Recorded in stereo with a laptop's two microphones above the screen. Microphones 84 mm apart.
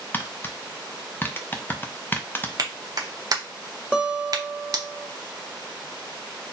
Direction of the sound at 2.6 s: 50° right (ahead or behind).